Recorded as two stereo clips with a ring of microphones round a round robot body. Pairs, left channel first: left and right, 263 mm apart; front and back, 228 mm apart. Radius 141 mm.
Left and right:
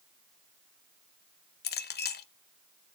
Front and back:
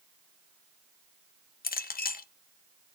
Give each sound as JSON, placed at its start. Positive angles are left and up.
{"t": 1.6, "sound": "a clink", "azimuth_deg": 45, "distance_m": 0.8}